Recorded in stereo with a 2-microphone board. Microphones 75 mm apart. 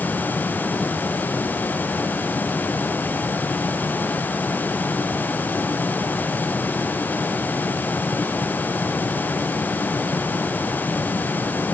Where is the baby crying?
I don't hear a baby crying.